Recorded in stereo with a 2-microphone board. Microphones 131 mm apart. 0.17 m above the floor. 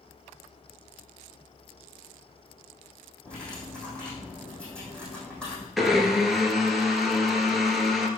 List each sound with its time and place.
3.2 s cutlery clinking: 5° left (ahead or behind), 4 m
5.8 s a blender: centre (ahead or behind), 1.3 m